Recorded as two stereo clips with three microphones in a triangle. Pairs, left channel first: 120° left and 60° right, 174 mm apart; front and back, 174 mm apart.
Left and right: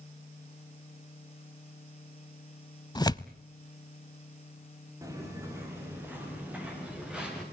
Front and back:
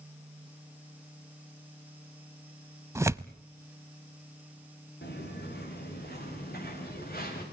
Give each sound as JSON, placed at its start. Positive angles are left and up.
{"t": 3.0, "sound": "tearing paper", "azimuth_deg": 135, "distance_m": 0.5}
{"t": 5.0, "sound": "footsteps", "azimuth_deg": 10, "distance_m": 7.0}